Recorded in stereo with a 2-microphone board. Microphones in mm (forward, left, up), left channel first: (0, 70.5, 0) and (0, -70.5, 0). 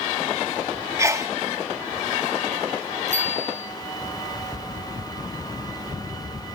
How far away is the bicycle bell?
About 7 m.